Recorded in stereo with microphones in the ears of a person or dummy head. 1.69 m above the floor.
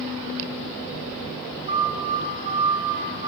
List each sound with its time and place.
1.7 s a siren: 35° right (ahead or behind), 3 m; by 3.3 s 30° right (ahead or behind), 4 m